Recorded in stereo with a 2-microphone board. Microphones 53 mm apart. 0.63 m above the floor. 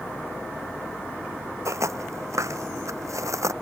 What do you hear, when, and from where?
1.6 s footsteps: 70° right (ahead or behind); by 3.5 s 75° right (ahead or behind)